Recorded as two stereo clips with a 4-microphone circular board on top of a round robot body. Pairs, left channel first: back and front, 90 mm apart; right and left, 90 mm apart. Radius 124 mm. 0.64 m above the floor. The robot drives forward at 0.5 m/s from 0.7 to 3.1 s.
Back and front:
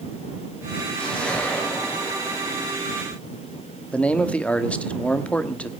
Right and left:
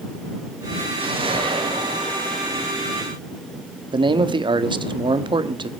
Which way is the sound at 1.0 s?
100° left.